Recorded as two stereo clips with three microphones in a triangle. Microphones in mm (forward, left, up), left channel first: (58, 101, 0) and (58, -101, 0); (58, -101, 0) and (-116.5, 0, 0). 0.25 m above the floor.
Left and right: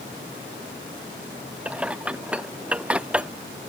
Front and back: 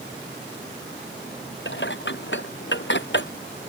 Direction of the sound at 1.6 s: 5° right.